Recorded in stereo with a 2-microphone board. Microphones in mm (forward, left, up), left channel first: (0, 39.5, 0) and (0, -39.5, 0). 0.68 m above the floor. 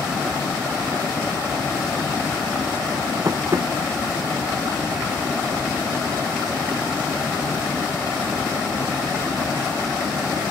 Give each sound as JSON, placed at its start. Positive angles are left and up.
{"t": 3.2, "sound": "tapping", "side_deg": -40}